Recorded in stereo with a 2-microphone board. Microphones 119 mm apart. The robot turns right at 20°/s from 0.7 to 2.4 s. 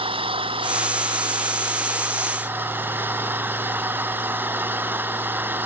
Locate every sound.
0.0 s an engine running: 50° right; by 5.7 s 20° right